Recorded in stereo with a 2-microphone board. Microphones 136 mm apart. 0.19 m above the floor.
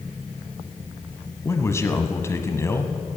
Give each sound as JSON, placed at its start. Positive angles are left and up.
{"t": 1.4, "sound": "a man speaking", "side_deg": 20, "distance_m": 1.0}